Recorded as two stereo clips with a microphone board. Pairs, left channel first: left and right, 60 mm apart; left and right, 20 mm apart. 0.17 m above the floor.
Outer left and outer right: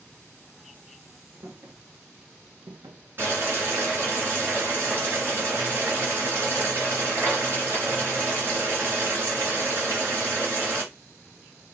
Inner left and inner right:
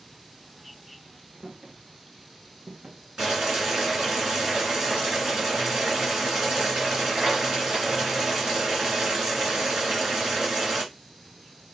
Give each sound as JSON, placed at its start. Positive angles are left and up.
{"t": 1.4, "sound": "footsteps", "side_deg": -65, "distance_m": 1.3}
{"t": 3.2, "sound": "boiling", "side_deg": -40, "distance_m": 2.5}